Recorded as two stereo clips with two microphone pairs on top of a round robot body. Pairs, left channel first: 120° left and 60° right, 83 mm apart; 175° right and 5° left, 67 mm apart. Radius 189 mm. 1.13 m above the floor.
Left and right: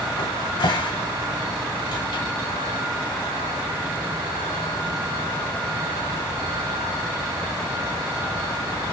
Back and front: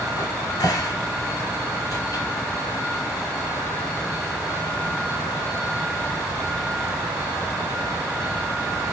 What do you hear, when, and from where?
0.2 s a cupboard door: 145° left, 2.5 m